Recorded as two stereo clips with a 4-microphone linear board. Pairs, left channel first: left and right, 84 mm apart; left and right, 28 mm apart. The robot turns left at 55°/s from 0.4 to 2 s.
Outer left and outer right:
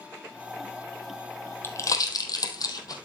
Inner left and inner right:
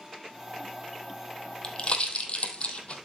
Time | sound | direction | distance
1.6 | a pop | 30° left (ahead or behind) | 1.8 m